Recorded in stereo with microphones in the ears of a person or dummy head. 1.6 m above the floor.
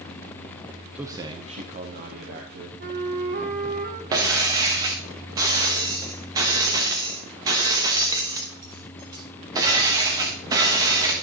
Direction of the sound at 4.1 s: 20° right (ahead or behind).